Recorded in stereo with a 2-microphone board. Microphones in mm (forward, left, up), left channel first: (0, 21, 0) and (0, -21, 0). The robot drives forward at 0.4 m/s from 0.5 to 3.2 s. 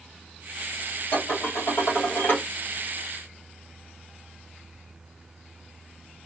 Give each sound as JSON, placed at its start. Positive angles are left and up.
{"t": 1.1, "sound": "dishes clattering", "side_deg": 60, "distance_m": 1.7}